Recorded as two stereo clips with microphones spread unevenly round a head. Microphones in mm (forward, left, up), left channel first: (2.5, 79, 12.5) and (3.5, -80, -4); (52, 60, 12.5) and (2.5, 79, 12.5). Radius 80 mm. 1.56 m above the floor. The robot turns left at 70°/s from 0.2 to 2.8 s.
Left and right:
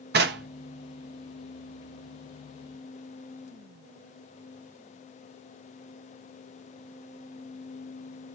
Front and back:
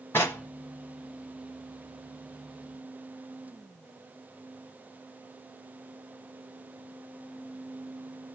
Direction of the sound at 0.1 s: 80° right.